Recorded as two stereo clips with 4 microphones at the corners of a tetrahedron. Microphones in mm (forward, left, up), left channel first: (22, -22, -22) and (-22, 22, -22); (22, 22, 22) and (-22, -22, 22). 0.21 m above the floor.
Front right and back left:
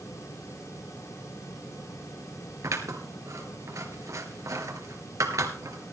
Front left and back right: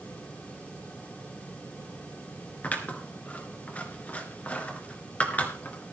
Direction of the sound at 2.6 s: 110° left.